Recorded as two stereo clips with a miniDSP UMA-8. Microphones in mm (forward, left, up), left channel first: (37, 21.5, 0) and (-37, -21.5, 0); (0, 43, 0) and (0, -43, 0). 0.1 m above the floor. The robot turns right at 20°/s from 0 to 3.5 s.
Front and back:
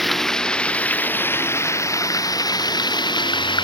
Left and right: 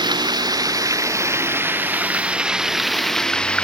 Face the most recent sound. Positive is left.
turn(degrees=10)